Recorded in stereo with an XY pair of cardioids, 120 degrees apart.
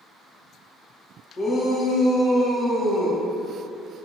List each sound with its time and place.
1.4 s a shout: 40° left, 1.1 m; by 3.2 s 25° right, 1.0 m